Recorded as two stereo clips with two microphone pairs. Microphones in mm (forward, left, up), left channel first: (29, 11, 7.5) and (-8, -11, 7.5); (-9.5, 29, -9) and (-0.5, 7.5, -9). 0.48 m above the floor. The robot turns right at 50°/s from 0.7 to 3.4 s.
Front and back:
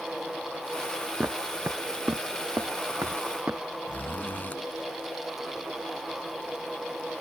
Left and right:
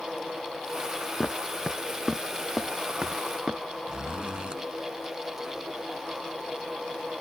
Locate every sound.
1.2 s footsteps: 160° left; by 3.6 s 105° right
3.9 s a zipper: 20° right